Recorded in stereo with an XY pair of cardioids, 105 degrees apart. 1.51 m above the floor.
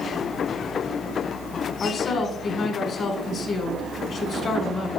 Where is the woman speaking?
55° left, 1.9 m.